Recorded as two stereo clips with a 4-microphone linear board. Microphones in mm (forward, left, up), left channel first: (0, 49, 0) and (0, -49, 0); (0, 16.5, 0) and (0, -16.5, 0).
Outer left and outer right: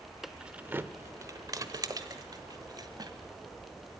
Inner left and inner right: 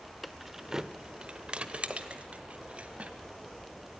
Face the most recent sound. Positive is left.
turn(degrees=-40)  # may be behind; listen again after turning